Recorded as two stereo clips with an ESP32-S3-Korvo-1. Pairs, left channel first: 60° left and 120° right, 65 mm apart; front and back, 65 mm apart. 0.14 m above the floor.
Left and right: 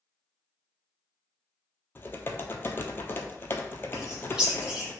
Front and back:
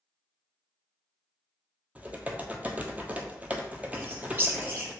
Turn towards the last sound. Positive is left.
turn(degrees=175)